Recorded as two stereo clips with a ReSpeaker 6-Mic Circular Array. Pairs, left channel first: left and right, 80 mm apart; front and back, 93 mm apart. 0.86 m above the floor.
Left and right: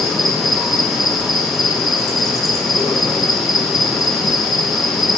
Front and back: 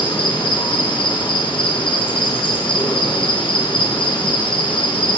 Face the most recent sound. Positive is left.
turn(degrees=0)